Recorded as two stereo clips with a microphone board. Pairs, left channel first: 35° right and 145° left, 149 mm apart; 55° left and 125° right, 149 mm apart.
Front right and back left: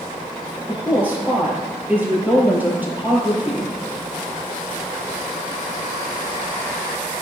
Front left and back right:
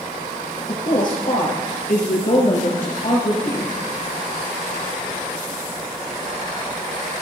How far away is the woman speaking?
About 4 m.